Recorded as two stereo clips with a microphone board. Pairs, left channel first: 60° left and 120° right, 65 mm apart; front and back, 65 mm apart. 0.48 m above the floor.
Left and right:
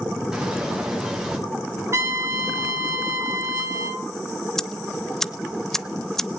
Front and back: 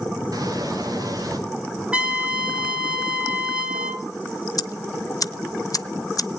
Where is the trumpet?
115° right, 1.5 m.